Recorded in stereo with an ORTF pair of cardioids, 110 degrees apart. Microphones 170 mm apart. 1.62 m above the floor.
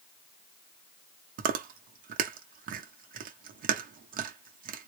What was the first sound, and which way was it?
Chewing, 55° right.